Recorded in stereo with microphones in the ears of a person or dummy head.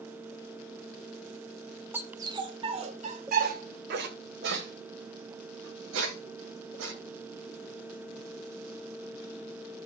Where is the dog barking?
10° right (ahead or behind), 1.4 m; by 6.9 s 80° right, 3.5 m.